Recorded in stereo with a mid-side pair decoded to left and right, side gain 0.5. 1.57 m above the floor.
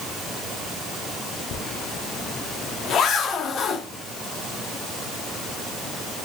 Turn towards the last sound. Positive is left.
turn(degrees=55)